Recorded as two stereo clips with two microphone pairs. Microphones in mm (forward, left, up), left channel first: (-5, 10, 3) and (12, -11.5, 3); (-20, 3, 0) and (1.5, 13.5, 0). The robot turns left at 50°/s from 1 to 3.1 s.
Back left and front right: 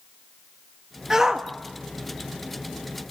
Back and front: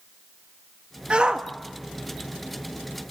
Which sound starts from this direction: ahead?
A shout, at 1.1 s.